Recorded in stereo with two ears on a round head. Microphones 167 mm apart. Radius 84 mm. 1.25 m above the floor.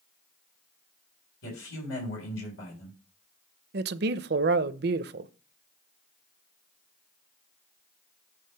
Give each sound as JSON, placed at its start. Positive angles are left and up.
{"t": 1.4, "sound": "a man speaking", "side_deg": 80, "distance_m": 4.0}
{"t": 3.7, "sound": "a man speaking", "side_deg": -55, "distance_m": 0.6}